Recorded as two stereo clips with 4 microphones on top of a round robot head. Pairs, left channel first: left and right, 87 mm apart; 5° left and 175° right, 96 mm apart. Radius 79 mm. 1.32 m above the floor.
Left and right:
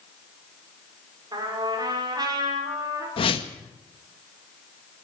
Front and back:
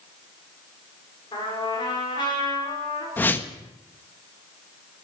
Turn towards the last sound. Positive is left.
turn(degrees=75)